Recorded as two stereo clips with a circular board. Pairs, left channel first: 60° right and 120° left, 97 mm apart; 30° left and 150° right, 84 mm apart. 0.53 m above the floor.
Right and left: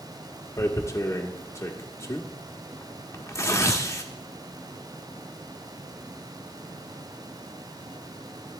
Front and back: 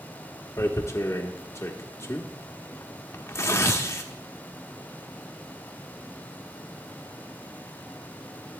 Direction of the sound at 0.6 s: 15° right.